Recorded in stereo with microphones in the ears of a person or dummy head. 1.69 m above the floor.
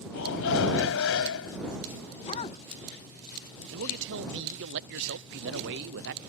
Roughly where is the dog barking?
Left.